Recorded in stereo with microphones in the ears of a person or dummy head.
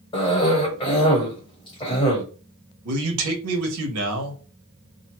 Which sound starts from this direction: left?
A cough, at 0.1 s.